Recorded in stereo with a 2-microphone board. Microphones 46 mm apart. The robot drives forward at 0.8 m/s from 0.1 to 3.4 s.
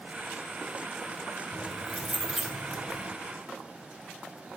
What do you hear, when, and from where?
1.5 s keys jangling: 10° right (ahead or behind), 2.5 m; by 3.1 s 5° right (ahead or behind), 4 m